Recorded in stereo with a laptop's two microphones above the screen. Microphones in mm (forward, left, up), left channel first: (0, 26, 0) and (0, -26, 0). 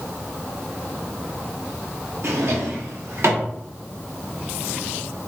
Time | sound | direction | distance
2.2 | a drawer | 65° right (ahead or behind) | 0.9 m